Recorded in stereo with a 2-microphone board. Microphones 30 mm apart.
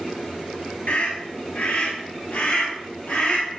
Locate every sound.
0.9 s a scream: 65° left (ahead or behind), 2.5 m; by 3.6 s 70° left (ahead or behind), 4 m